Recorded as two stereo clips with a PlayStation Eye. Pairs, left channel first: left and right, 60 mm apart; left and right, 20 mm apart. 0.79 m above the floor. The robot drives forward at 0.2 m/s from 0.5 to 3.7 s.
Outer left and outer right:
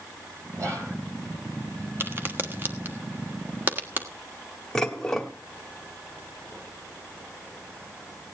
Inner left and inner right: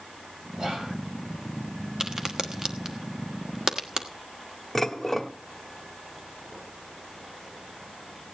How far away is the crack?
About 1.2 m.